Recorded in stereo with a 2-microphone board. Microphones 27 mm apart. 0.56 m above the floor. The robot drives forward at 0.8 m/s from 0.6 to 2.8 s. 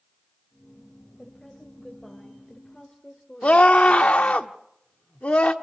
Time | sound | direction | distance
1.2 | a woman speaking | 15° left (ahead or behind) | 3 m
3.4 | a scream | 50° left (ahead or behind) | 1.2 m